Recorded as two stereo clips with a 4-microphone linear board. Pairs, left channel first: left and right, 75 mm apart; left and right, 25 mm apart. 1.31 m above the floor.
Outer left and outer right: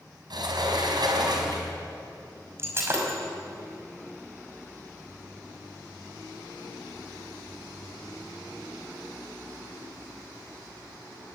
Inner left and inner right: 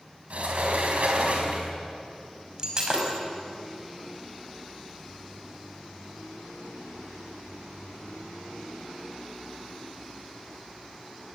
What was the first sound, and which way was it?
A sliding door, 65° right (ahead or behind).